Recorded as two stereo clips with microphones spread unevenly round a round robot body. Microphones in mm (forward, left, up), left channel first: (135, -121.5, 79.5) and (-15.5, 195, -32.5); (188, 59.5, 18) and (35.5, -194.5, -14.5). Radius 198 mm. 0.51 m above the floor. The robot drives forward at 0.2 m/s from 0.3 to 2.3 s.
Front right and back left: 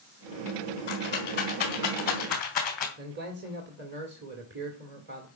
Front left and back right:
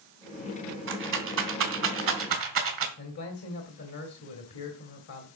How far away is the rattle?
About 2.5 m.